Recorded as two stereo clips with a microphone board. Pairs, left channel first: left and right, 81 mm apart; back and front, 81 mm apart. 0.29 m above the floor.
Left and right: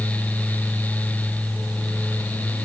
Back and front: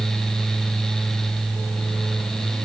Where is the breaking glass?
No breaking glass in this recording.